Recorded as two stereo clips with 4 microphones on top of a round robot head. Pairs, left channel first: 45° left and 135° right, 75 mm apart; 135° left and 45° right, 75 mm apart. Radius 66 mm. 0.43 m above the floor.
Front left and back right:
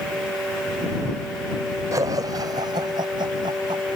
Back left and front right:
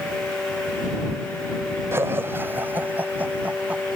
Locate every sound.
1.9 s laughter: 100° right; by 3.8 s 115° right